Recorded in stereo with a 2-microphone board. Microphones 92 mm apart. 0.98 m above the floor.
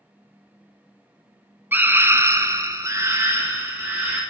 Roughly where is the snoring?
I don't hear snoring.